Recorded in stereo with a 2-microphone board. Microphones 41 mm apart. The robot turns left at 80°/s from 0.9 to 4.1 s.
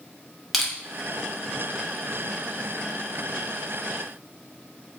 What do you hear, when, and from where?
0.5 s crushing: centre (ahead or behind), 0.6 m